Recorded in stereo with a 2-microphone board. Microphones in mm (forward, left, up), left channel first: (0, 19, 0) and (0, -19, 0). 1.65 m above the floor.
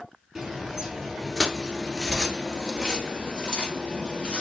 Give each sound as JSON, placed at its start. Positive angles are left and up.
{"t": 0.3, "sound": "footsteps", "side_deg": -10, "distance_m": 1.8}